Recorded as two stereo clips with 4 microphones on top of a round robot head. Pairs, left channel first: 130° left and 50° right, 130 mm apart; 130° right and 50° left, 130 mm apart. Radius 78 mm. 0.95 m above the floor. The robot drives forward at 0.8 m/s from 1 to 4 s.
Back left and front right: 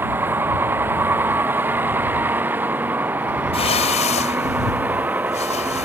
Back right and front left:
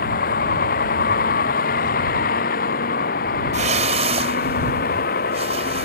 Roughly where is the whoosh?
Left.